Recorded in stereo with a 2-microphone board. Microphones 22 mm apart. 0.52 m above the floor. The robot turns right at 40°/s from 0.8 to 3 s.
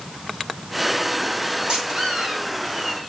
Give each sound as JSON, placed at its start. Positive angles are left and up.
{"t": 1.7, "sound": "a squeak", "azimuth_deg": -145, "distance_m": 2.5}